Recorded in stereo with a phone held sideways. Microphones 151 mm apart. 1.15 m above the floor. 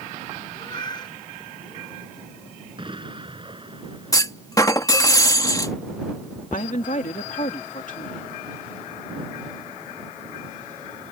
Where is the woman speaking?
60° left (ahead or behind).